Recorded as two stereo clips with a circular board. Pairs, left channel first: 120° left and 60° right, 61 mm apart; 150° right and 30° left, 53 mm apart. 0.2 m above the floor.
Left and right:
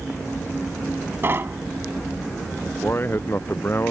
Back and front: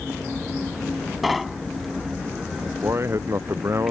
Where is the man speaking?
65° left.